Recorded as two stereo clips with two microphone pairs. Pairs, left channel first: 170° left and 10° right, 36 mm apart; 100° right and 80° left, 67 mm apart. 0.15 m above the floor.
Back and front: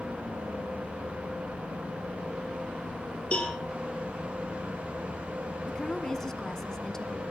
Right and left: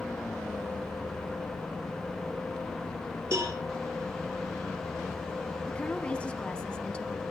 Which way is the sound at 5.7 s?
140° right.